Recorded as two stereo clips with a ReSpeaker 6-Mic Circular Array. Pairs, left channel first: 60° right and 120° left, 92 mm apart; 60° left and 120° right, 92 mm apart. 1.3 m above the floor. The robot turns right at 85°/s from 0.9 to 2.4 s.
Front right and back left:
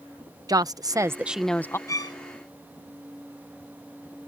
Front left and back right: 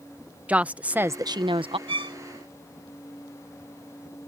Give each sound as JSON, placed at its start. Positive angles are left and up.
{"t": 0.5, "sound": "a woman speaking", "azimuth_deg": 165}
{"t": 1.9, "sound": "a violin", "azimuth_deg": -115}